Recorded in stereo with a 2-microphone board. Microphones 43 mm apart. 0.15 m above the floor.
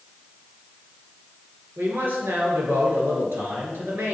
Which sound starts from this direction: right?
A man speaking, at 1.8 s.